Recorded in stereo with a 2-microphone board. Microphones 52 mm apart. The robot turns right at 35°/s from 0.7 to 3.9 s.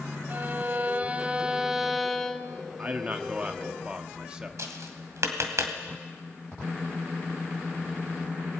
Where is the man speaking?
75° right, 1.2 m; by 4.5 s 35° right, 1.2 m.